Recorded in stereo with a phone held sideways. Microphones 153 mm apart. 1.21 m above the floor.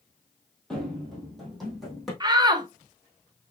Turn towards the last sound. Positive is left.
turn(degrees=-25)  # may be behind; listen again after turning